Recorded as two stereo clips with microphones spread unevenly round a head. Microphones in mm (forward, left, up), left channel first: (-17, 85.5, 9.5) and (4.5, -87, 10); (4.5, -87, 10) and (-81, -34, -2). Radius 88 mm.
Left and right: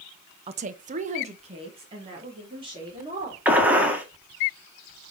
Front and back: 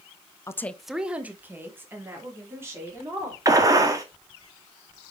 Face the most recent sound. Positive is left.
turn(degrees=-165)